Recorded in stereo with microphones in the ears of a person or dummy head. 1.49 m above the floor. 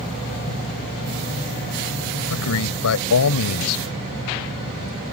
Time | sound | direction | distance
2.3 | a man speaking | 80° left | ?